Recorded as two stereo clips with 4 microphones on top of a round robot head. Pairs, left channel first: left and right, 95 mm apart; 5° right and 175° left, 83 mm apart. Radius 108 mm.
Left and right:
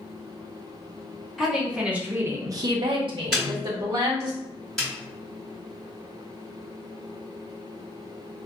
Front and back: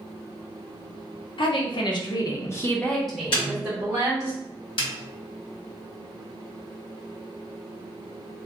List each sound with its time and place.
1.4 s a woman speaking: straight ahead, 0.8 m; by 4.3 s 125° right, 1.0 m
3.3 s a snare drum: straight ahead, 1.3 m
4.8 s a snare drum: 5° left, 1.3 m